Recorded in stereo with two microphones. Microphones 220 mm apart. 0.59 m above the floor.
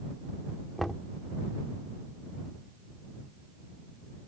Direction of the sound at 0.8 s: Centre (ahead or behind).